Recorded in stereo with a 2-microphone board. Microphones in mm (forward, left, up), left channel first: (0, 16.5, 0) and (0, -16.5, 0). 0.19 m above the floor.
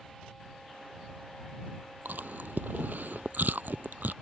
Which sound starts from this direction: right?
Chewing, at 2.0 s.